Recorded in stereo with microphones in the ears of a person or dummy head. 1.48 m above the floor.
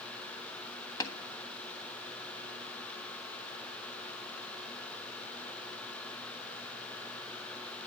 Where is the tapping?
25° left (ahead or behind), 1.4 m.